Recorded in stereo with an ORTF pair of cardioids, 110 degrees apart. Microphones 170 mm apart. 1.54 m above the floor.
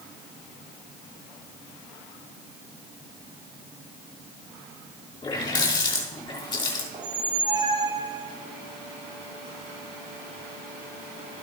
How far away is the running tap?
About 3 m.